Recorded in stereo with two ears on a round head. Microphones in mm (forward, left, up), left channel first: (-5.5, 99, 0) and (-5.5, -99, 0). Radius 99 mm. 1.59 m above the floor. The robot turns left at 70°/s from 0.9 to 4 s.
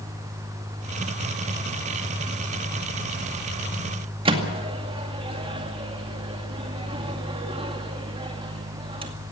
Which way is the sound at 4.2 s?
25° right (ahead or behind).